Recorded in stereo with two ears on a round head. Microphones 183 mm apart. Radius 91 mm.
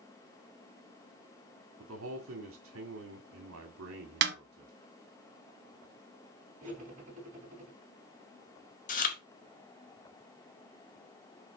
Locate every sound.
1.8 s a man speaking: 75° right (ahead or behind), 1.8 m
4.2 s a snare drum: 55° right (ahead or behind), 1.1 m
6.6 s cutlery clinking: 40° right (ahead or behind), 4 m
8.9 s chewing: 40° left (ahead or behind), 1.6 m